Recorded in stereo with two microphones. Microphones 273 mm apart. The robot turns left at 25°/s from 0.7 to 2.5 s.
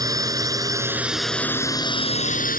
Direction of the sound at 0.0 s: 165° right.